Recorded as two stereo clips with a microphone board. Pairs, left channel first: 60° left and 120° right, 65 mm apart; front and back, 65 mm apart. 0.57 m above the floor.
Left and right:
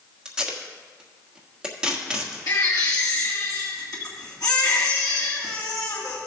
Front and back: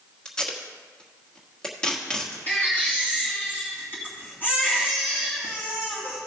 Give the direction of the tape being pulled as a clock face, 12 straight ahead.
2 o'clock.